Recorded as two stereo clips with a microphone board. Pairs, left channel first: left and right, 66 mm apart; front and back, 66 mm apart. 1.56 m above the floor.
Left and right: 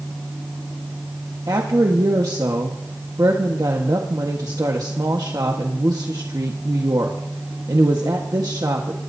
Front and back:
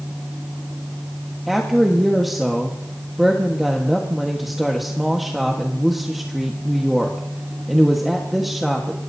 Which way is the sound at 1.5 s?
90° right.